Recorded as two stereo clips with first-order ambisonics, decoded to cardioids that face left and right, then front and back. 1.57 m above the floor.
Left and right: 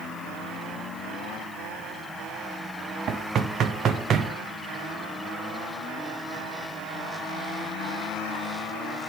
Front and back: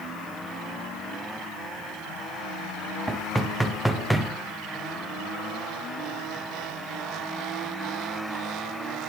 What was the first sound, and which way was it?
Knocking, 90° right.